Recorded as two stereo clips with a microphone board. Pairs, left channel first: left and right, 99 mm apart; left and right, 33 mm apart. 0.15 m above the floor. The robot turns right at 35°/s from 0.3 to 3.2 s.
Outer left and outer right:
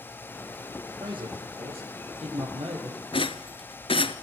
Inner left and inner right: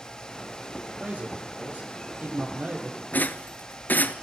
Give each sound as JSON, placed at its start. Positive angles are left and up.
{"t": 1.0, "sound": "a man speaking", "azimuth_deg": -130, "distance_m": 5.5}
{"t": 3.1, "sound": "a rattle", "side_deg": 60, "distance_m": 0.8}